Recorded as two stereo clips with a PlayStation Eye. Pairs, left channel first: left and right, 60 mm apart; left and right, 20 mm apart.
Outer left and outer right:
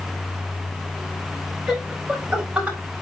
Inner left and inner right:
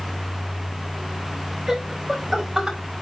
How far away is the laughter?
About 5 m.